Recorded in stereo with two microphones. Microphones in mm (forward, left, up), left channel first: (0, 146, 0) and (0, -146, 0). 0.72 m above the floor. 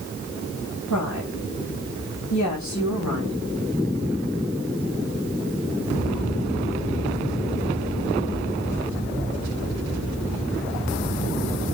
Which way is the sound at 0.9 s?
75° left (ahead or behind).